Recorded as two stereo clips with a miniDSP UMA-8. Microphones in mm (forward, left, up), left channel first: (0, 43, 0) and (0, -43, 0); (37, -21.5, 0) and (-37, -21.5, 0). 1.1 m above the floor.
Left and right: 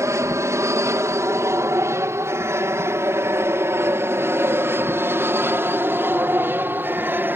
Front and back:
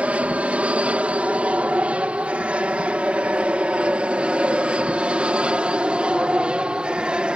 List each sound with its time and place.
0.0 s an aircraft: 115° right; by 7.4 s 120° right